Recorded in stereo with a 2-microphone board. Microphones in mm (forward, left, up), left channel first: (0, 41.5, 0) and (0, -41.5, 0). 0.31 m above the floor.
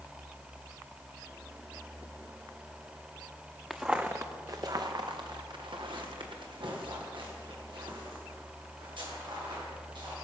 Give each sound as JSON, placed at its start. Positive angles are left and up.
{"t": 3.7, "sound": "footsteps", "side_deg": -5, "distance_m": 1.1}